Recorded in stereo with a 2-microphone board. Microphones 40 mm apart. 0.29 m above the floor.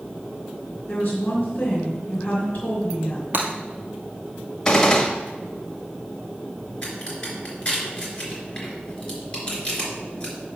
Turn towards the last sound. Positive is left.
turn(degrees=25)  # may be behind; listen again after turning